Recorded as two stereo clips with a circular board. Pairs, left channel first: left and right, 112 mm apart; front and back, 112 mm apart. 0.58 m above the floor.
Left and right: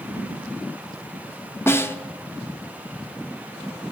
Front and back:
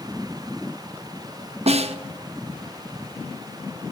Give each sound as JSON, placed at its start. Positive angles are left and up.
{"t": 1.7, "sound": "a snare drum", "azimuth_deg": 160, "distance_m": 0.6}